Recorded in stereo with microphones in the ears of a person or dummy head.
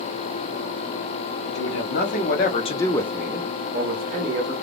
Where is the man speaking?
60° left (ahead or behind), 0.9 m; by 4.5 s 60° right (ahead or behind), 0.9 m.